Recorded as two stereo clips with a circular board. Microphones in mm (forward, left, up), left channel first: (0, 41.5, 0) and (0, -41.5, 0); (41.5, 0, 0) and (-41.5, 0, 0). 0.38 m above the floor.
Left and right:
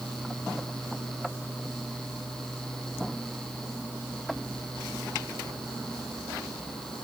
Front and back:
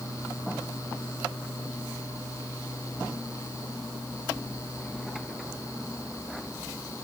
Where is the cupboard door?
No cupboard door in this recording.